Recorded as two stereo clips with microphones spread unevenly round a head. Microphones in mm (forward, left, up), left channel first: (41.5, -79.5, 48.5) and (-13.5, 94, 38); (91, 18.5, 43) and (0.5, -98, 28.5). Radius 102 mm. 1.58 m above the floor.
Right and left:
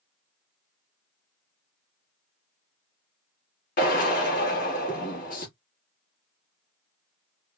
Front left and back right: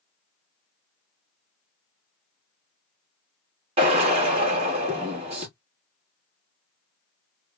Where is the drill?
95° right, 1.2 m.